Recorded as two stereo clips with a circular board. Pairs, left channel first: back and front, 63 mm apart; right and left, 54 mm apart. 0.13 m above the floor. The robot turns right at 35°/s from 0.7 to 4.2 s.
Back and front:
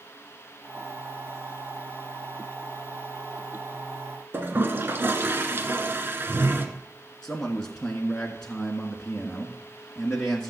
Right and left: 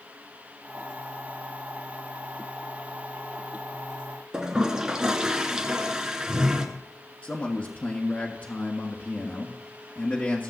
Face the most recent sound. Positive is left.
turn(degrees=-110)